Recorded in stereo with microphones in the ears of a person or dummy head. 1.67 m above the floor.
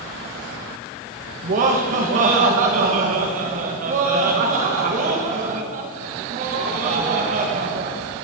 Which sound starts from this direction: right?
Laughter, at 1.4 s.